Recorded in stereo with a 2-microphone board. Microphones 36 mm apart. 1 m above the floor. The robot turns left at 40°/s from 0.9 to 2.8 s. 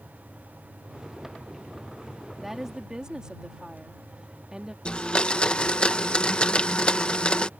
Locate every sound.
2.4 s a woman speaking: centre (ahead or behind); by 4.8 s 20° right (ahead or behind)
4.8 s a blender: 25° left (ahead or behind)